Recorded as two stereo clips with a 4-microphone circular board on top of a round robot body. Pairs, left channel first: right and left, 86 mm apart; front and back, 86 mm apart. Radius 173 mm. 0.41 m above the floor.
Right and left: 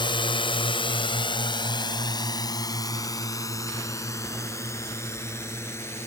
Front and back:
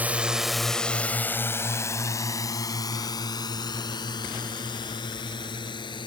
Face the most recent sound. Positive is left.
turn(degrees=-30)